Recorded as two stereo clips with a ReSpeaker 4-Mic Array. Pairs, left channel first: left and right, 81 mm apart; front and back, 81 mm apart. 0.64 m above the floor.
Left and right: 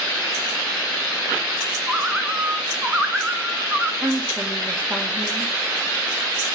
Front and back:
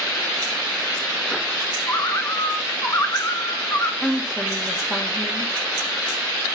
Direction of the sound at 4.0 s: 75° right.